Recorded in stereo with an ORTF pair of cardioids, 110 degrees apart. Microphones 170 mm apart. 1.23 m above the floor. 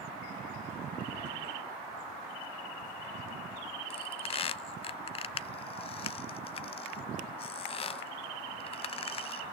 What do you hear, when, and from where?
3.9 s a squeak: 35° left, 0.6 m